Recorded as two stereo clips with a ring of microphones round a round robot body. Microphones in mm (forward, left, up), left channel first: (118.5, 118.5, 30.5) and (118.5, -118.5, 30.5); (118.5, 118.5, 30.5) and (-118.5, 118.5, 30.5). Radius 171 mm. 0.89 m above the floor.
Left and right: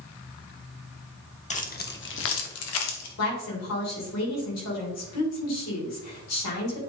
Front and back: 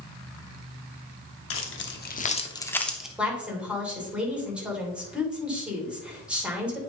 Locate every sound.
1.5 s keys jangling: 30° left, 1.3 m; by 3.1 s 95° left, 1.4 m
3.2 s a woman speaking: 95° left, 3 m